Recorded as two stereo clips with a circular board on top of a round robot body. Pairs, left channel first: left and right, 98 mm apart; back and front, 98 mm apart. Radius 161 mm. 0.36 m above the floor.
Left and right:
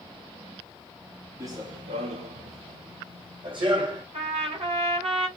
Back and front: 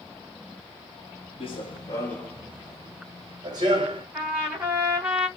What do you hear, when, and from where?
1.4 s running footsteps: 150° right, 0.9 m; by 4.0 s 45° right, 1.9 m
4.1 s a trumpet: 75° right, 2.5 m